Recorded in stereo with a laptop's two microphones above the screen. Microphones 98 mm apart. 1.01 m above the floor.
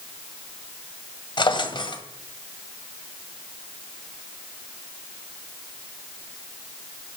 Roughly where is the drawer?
Left.